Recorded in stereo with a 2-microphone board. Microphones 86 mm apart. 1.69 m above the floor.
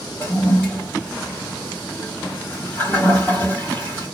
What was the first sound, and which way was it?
A toilet flushing, 20° left (ahead or behind).